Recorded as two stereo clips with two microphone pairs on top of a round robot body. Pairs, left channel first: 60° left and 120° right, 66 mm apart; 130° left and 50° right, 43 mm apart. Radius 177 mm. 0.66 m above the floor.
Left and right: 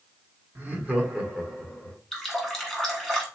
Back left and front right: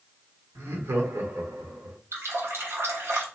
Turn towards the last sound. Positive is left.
turn(degrees=-30)